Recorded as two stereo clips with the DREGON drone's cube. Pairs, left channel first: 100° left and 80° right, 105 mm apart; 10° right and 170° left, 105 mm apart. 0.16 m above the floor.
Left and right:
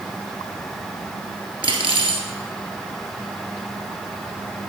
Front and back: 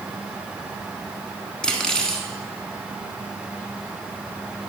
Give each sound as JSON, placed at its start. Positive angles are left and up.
{"t": 1.6, "sound": "cutlery clinking", "azimuth_deg": -95, "distance_m": 1.3}